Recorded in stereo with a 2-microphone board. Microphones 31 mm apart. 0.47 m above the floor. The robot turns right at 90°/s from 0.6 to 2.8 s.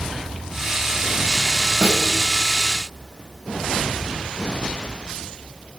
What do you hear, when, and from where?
1.8 s a snare drum: 55° right (ahead or behind), 1.4 m; by 2.1 s 70° right (ahead or behind), 1.4 m